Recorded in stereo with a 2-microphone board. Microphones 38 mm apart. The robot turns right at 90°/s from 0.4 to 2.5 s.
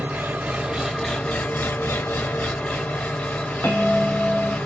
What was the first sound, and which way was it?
An engine running, 55° right.